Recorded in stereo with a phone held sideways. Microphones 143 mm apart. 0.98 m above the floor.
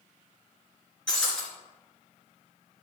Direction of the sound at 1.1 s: 5° left (ahead or behind).